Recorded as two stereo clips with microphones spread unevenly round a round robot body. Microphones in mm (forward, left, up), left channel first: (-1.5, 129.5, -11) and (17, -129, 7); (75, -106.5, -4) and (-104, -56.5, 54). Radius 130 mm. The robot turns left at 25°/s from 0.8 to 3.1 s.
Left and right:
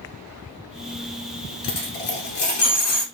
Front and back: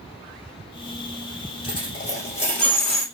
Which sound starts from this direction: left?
A dropped coin, at 1.6 s.